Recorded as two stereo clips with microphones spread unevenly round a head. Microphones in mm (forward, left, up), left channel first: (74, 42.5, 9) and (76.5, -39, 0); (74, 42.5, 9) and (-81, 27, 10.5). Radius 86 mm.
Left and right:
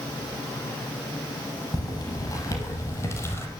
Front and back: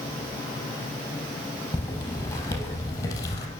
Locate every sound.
1.7 s footsteps: 75° left, 3 m; by 3.5 s 65° left, 2 m